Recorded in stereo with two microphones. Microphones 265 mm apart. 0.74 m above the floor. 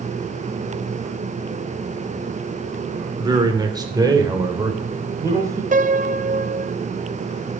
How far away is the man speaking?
About 2.5 m.